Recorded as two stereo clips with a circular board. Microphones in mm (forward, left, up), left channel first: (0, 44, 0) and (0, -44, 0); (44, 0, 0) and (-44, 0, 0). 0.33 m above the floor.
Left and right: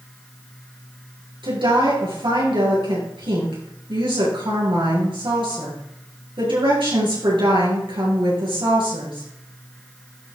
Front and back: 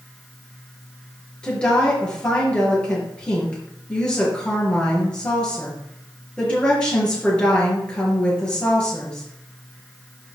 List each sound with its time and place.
1.4 s a woman speaking: 80° right, 5 m